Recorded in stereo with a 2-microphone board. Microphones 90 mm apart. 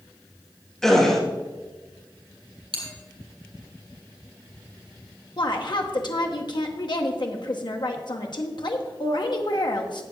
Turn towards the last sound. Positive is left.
turn(degrees=55)  # may be behind; listen again after turning